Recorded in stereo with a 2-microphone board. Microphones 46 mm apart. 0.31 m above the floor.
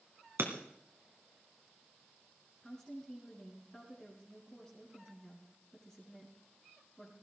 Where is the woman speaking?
15° left (ahead or behind), 3.5 m.